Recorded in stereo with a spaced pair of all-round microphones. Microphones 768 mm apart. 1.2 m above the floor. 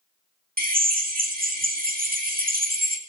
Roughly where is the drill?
Centre.